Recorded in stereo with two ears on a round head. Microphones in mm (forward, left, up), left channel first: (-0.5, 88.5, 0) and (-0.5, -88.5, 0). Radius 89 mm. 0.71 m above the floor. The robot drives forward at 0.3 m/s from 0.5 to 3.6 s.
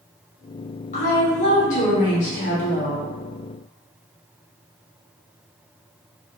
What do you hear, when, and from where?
0.9 s a woman speaking: 40° left (ahead or behind), 1.2 m; by 3.0 s 35° left (ahead or behind), 1.2 m